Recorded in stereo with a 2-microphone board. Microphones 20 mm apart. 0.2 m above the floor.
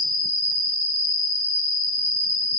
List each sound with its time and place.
0.0 s an insect: 10° right (ahead or behind), 1.3 m